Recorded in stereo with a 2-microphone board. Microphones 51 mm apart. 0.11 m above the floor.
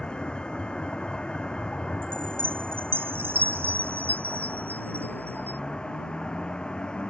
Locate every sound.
0.0 s a vehicle: 20° left (ahead or behind)
2.0 s a chime: 50° right (ahead or behind)